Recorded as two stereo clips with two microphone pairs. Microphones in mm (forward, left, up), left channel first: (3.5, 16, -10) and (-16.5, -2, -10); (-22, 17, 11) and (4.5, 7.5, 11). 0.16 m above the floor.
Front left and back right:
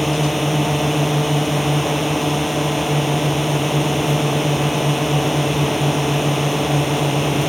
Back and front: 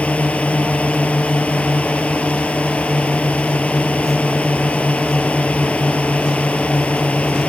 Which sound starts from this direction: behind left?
A drone, at 0.0 s.